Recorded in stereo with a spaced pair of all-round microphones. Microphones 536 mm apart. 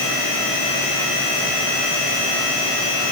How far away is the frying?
I don't hear frying.